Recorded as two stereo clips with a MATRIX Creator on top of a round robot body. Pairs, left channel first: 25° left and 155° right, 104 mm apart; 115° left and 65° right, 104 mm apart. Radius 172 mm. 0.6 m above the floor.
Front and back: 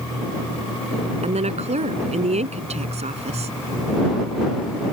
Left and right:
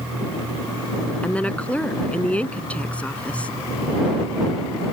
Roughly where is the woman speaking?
Behind.